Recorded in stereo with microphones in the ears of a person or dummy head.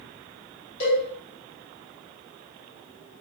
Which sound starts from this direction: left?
A cowbell, at 0.8 s.